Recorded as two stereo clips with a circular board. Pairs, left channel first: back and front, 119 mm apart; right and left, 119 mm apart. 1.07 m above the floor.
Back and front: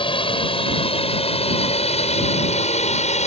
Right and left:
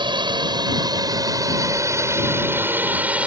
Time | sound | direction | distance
0.0 | a drone | 140° left | ?